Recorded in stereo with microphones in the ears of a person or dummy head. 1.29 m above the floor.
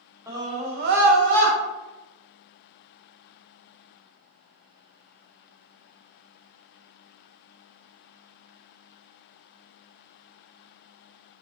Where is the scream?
20° right (ahead or behind), 1.0 m; by 1.6 s 65° right (ahead or behind), 1.0 m.